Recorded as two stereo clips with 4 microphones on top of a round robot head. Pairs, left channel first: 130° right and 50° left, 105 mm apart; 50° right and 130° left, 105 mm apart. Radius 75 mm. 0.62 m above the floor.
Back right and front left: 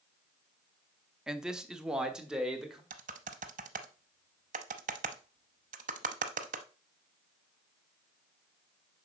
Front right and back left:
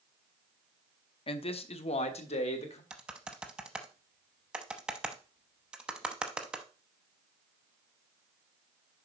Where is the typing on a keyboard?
50° left, 0.6 m.